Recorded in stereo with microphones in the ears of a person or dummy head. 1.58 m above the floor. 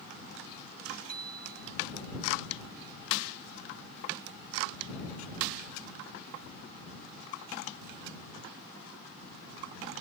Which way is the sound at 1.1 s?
45° right (ahead or behind).